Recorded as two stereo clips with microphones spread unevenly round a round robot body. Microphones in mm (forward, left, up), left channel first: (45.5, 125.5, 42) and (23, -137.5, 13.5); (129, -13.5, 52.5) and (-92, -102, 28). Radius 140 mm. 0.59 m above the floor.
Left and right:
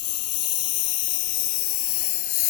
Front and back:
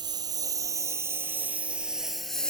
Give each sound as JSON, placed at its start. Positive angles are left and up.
{"t": 0.0, "sound": "a lawn mower", "azimuth_deg": 125}